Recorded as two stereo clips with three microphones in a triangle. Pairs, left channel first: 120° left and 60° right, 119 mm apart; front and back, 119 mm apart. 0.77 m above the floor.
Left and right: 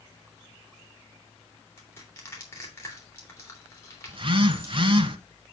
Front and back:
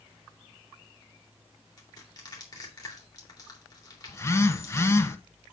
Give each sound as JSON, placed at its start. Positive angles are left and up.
{"t": 1.8, "sound": "crushing", "azimuth_deg": 50, "distance_m": 3.0}
{"t": 4.1, "sound": "a phone buzzing", "azimuth_deg": -55, "distance_m": 0.9}